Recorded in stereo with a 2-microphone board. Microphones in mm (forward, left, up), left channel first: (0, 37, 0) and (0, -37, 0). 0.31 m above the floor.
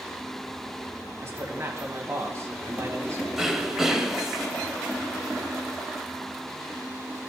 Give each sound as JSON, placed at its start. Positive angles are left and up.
{"t": 1.2, "sound": "a man speaking", "side_deg": -40, "distance_m": 2.0}
{"t": 3.4, "sound": "throat clearing", "side_deg": -5, "distance_m": 0.9}